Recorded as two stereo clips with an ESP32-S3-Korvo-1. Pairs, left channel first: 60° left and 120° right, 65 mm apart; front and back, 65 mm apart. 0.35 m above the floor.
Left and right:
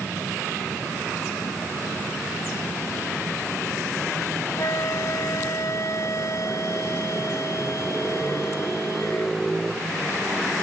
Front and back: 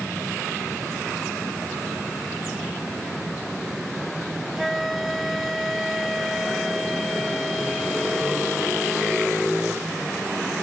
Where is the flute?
90° left.